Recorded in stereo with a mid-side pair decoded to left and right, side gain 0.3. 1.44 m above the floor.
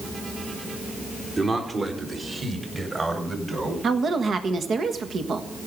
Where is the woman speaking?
65° right, 1.5 m.